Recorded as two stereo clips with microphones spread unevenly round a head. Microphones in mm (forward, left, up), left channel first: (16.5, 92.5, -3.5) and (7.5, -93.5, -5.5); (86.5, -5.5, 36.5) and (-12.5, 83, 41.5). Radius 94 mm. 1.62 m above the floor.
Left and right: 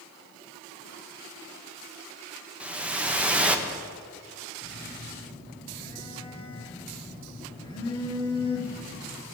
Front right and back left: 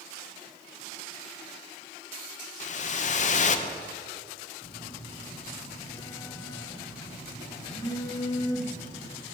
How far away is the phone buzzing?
About 1.9 m.